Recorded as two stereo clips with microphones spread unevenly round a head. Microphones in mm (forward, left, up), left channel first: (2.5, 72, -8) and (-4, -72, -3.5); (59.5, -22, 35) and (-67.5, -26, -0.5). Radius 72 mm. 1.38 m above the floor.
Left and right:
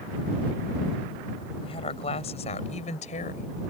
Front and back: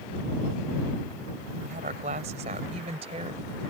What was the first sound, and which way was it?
A woman speaking, 140° left.